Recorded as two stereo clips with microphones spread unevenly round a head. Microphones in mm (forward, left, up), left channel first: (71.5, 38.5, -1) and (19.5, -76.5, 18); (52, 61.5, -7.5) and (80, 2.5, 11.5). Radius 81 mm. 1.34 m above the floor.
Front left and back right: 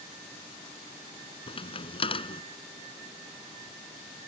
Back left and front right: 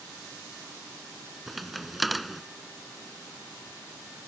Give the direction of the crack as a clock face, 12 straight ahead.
11 o'clock.